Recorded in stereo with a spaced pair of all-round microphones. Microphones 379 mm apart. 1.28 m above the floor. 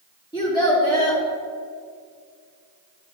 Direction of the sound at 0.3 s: 10° left (ahead or behind).